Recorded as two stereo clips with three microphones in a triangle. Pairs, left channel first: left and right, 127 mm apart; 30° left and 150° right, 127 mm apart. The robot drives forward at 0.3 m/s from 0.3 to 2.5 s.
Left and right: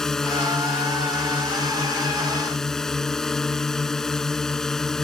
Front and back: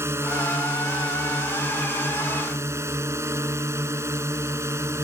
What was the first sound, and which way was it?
A drone, 170° left.